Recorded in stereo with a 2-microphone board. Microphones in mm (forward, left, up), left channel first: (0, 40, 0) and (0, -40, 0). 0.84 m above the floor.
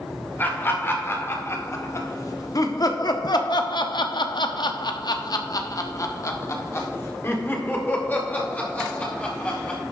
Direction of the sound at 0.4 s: 25° left (ahead or behind).